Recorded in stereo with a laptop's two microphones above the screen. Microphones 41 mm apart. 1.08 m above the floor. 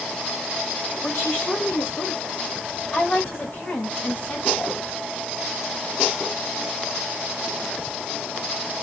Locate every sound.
1.0 s a woman speaking: 85° left, 3 m; by 4.8 s 55° left (ahead or behind), 4 m